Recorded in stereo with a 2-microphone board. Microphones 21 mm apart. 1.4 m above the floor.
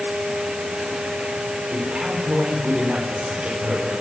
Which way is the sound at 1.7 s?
55° right (ahead or behind).